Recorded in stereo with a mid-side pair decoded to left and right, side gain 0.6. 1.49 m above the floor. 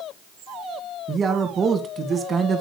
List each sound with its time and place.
1.1 s a man speaking: 30° right, 2.5 m